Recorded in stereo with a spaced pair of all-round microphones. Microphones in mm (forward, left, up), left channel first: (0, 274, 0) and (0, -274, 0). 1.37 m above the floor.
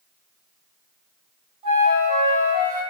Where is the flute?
65° right (ahead or behind), 1.1 m.